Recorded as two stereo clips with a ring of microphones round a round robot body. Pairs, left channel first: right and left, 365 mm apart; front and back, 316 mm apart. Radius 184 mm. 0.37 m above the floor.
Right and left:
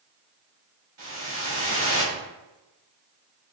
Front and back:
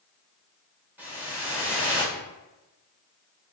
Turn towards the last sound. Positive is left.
turn(degrees=100)